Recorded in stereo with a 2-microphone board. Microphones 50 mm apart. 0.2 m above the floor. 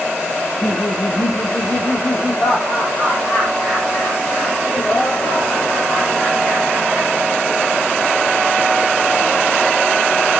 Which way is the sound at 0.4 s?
35° left (ahead or behind).